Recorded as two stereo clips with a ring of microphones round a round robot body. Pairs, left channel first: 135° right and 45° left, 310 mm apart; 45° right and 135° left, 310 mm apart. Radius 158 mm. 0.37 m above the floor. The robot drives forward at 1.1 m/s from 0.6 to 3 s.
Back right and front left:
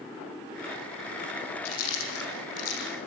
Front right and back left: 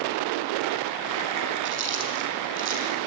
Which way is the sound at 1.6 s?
170° right.